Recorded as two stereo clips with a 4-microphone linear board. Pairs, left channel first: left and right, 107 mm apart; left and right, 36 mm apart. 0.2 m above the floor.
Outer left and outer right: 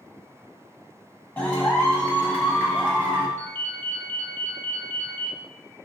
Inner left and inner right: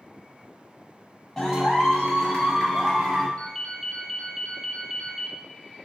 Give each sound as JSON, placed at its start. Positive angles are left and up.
{"t": 1.4, "sound": "a clap", "side_deg": 15, "distance_m": 0.9}
{"t": 3.4, "sound": "a ringtone", "side_deg": 25, "distance_m": 0.5}